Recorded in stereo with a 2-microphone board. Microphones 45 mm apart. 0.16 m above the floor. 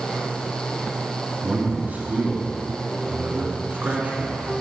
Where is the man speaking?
40° right (ahead or behind), 1.5 m.